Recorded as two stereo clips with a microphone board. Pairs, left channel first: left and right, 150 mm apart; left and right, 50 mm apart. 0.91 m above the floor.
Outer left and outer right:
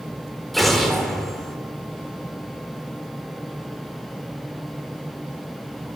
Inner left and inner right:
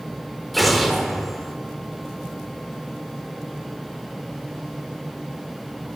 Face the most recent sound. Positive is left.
turn(degrees=0)  # may be behind; listen again after turning